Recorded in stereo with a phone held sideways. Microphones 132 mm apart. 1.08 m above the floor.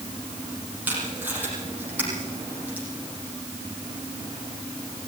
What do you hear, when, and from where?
0.9 s tape being pulled: 15° right (ahead or behind), 7.5 m